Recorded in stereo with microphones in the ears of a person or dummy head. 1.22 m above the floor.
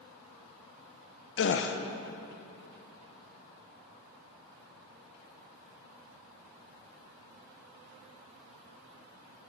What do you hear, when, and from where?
1.4 s a gasp: 50° left (ahead or behind), 0.6 m